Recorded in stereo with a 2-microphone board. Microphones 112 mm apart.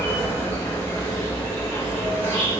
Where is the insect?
15° left (ahead or behind), 1.4 m.